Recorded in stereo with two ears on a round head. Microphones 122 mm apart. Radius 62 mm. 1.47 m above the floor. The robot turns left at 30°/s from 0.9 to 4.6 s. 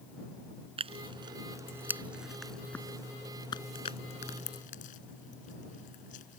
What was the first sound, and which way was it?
Tearing paper, 45° right (ahead or behind).